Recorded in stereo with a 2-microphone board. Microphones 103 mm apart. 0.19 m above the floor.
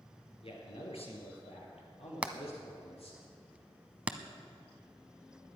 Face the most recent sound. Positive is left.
turn(degrees=-15)  # may be behind; listen again after turning